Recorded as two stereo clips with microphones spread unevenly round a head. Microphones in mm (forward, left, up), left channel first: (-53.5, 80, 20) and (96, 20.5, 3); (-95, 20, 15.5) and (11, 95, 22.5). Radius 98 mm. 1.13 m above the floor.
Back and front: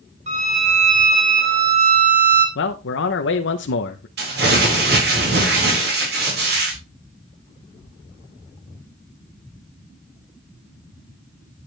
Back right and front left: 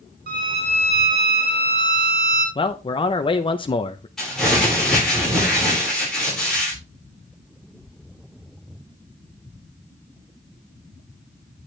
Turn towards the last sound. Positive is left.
turn(degrees=-60)